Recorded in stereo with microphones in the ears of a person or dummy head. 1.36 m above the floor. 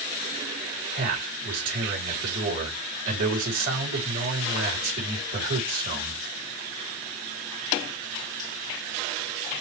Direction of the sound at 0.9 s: 45° right (ahead or behind).